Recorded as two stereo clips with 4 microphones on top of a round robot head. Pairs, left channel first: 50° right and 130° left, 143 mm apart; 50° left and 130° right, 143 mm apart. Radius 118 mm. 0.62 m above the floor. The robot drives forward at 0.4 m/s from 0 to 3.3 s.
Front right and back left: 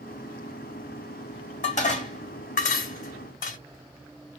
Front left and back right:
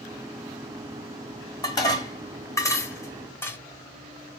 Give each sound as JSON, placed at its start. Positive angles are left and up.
{"t": 1.6, "sound": "dishes clattering", "azimuth_deg": -15, "distance_m": 1.6}